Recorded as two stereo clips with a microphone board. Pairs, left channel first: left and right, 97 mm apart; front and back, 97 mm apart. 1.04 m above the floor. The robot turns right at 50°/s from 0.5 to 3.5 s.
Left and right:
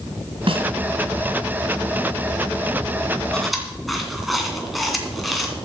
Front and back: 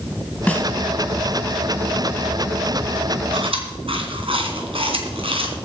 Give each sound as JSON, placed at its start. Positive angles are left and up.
{"t": 0.5, "sound": "a snare drum", "azimuth_deg": -70, "distance_m": 2.0}
{"t": 3.3, "sound": "chewing", "azimuth_deg": 170, "distance_m": 2.5}